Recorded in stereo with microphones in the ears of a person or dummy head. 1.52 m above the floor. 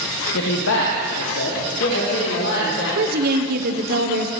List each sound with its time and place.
0.3 s a man speaking: 70° left (ahead or behind), 1.4 m
3.0 s a woman speaking: 50° right (ahead or behind), 1.1 m